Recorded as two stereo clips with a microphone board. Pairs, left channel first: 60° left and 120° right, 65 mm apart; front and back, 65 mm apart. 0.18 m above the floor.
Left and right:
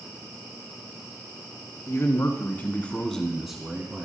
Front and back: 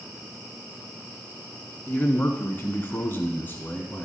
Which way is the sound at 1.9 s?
50° left.